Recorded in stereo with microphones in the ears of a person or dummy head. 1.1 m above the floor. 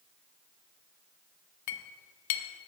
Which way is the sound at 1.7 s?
60° left (ahead or behind).